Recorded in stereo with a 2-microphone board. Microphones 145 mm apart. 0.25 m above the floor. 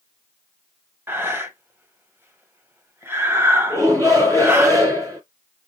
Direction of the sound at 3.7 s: 25° right (ahead or behind).